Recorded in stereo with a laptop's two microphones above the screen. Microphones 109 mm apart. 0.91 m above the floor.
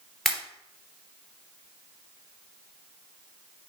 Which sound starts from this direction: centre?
A pop, at 0.2 s.